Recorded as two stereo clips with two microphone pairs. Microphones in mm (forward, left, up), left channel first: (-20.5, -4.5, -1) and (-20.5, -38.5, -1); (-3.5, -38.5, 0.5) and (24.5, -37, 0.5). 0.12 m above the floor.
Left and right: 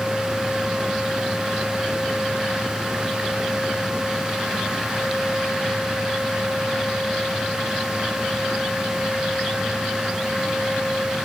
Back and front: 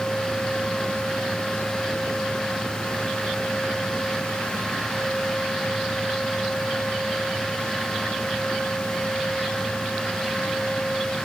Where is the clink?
I don't hear a clink.